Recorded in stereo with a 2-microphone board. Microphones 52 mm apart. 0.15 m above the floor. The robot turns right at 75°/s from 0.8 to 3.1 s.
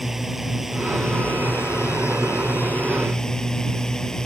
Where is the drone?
5° right; by 4.2 s 170° left.